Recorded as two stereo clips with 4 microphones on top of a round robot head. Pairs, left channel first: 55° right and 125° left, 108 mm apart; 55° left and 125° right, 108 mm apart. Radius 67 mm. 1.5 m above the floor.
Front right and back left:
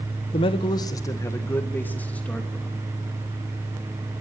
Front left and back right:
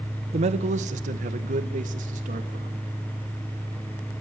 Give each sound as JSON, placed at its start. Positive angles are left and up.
{"t": 0.3, "sound": "a man speaking", "azimuth_deg": -95, "distance_m": 1.0}